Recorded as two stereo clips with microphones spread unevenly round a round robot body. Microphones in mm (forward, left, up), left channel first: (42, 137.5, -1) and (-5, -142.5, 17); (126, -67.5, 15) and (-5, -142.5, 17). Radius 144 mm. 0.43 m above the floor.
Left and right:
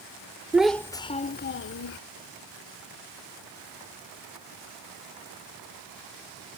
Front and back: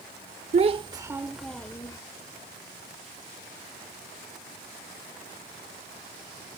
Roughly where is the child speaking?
Behind.